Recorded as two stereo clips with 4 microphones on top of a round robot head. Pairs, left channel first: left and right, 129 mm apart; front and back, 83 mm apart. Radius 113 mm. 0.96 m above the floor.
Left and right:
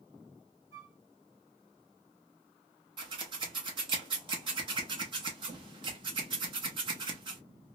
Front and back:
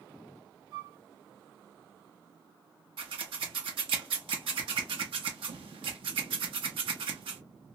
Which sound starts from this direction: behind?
A flute, at 0.7 s.